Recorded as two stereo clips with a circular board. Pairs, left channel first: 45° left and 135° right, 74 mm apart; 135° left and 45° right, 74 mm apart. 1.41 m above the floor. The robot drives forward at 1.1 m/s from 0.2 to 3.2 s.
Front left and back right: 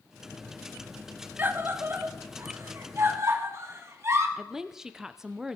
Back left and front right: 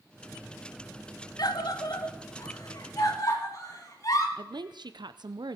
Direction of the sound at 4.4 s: 50° right.